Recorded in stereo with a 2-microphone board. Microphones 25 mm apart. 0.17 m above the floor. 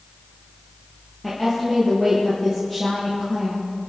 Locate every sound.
1.2 s a woman speaking: centre (ahead or behind), 5 m